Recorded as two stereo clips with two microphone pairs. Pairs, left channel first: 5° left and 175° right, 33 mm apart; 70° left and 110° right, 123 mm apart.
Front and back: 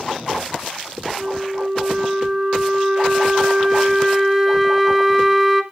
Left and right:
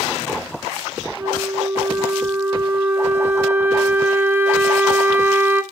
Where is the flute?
145° right, 1.4 m.